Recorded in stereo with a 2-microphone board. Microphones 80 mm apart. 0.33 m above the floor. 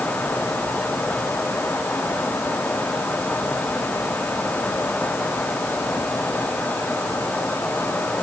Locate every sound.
Only background noise.